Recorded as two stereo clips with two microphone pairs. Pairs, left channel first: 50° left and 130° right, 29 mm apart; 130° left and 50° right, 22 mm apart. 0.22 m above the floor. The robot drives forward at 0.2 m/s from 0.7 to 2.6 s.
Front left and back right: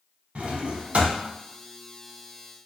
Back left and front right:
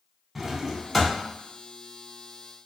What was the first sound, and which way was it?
A drawer, 135° right.